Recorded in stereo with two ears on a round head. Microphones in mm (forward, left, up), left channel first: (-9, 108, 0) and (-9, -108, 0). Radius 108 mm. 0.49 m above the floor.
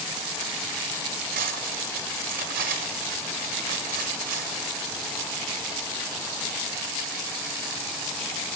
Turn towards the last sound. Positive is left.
turn(degrees=-35)  # may be behind; listen again after turning